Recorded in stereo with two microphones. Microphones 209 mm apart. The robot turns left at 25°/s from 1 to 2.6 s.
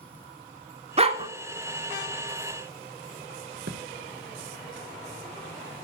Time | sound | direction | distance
1.0 | a dog barking | 30° right (ahead or behind) | 0.5 m
3.7 | a thud | 60° right (ahead or behind) | 0.6 m